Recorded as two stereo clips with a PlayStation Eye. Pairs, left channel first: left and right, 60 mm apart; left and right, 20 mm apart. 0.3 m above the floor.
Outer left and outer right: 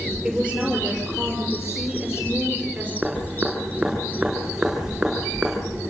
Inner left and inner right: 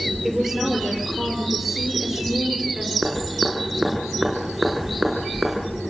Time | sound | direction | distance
0.2 | a woman speaking | 5° right (ahead or behind) | 6.5 m
3.0 | dripping | 15° right (ahead or behind) | 6 m